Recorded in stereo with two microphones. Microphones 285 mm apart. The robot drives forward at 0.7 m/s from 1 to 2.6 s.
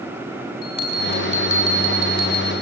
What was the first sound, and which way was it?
A bell, 40° right (ahead or behind).